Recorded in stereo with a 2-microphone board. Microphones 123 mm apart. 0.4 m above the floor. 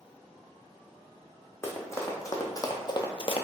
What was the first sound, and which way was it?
Running footsteps, 20° left (ahead or behind).